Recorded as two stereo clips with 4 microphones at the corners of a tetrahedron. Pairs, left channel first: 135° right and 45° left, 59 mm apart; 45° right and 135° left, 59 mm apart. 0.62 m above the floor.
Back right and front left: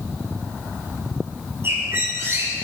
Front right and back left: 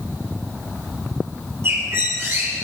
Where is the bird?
95° left, 6.5 m.